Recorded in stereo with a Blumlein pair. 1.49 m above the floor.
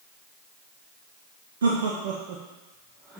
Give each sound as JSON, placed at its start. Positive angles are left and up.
{"t": 1.6, "sound": "laughter", "azimuth_deg": -60, "distance_m": 1.0}